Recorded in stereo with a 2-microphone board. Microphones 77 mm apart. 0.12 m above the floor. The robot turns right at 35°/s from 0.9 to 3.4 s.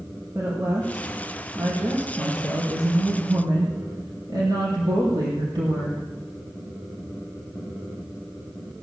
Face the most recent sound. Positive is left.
turn(degrees=-70)